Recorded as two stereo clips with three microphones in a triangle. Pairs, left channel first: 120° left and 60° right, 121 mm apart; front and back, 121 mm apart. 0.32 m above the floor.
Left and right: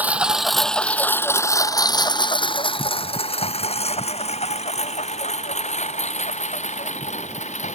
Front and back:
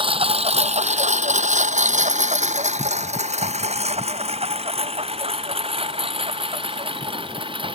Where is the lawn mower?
140° right; by 7.8 s 135° left.